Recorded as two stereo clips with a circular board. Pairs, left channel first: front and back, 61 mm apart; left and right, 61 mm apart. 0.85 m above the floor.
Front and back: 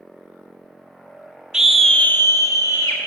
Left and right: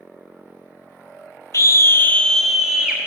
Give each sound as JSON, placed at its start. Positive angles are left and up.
{"t": 1.5, "sound": "a scream", "azimuth_deg": 105, "distance_m": 0.7}